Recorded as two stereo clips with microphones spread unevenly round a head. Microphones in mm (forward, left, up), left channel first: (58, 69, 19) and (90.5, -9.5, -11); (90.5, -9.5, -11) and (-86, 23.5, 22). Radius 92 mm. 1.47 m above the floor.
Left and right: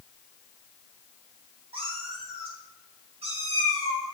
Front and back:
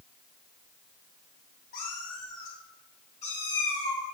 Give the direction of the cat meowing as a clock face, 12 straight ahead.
2 o'clock.